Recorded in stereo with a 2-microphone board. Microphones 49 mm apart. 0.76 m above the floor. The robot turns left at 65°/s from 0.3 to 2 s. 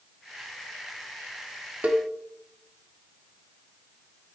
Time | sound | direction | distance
1.8 | a cowbell | 30° right (ahead or behind) | 0.7 m